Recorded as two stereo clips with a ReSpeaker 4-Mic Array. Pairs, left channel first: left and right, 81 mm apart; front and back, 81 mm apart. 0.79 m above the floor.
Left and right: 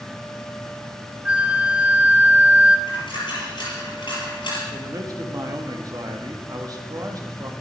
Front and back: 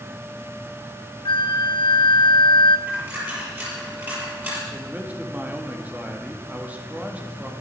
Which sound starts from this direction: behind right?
A man speaking, at 4.7 s.